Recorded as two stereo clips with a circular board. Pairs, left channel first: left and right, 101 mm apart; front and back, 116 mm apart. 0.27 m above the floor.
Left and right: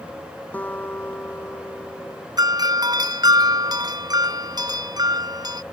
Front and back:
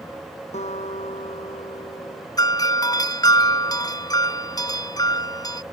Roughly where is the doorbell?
Ahead right.